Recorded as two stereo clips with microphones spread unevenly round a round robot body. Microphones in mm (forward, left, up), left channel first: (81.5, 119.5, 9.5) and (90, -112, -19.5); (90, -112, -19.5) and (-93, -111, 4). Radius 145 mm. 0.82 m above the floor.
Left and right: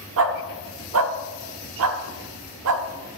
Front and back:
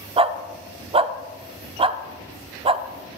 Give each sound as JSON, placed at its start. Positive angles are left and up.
{"t": 0.2, "sound": "a dog barking", "azimuth_deg": -125, "distance_m": 0.6}